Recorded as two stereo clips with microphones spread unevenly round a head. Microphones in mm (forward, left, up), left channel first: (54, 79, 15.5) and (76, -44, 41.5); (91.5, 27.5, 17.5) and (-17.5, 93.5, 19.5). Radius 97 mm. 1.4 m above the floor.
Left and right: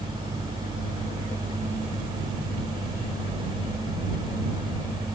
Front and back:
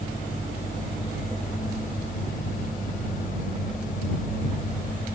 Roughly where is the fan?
Ahead right.